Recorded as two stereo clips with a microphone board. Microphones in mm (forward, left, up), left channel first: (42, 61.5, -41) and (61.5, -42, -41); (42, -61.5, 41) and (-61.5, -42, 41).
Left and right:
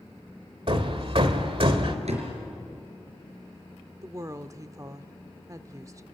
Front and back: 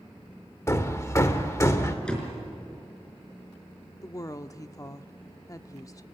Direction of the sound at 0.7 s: 70° right.